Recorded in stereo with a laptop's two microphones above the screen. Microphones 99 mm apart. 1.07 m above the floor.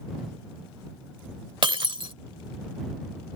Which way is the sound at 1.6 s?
55° right (ahead or behind).